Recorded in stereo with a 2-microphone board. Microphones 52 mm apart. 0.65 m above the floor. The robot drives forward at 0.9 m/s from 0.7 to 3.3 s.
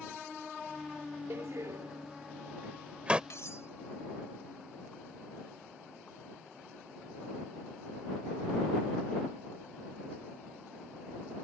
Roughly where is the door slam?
Right.